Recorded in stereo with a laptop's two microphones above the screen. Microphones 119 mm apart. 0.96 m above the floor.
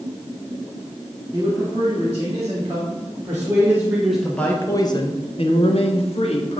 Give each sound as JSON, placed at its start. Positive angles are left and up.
{"t": 1.3, "sound": "a man speaking", "side_deg": -35, "distance_m": 2.0}